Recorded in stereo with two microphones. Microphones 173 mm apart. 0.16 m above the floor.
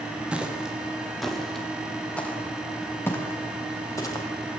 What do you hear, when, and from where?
0.3 s footsteps: 5° right (ahead or behind), 5 m; by 4.2 s 20° left (ahead or behind), 6.5 m